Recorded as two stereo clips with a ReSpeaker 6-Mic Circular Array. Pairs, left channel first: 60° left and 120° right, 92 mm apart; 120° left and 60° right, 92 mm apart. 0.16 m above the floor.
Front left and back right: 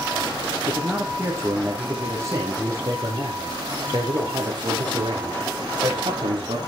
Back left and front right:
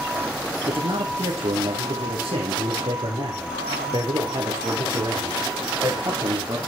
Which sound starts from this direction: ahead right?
A man speaking, at 0.7 s.